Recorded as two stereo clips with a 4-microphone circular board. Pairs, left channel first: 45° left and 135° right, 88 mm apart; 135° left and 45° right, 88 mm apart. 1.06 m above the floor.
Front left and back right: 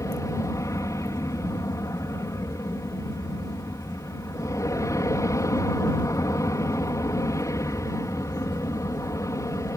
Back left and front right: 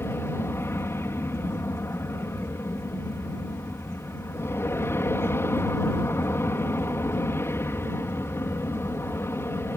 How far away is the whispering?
No whispering in this recording.